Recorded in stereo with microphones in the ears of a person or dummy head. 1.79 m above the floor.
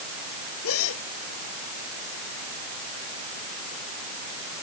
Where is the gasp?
85° left.